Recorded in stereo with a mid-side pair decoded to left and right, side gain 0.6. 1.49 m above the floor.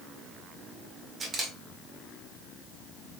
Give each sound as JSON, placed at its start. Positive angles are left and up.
{"t": 1.2, "sound": "a camera shutter", "azimuth_deg": -25, "distance_m": 1.8}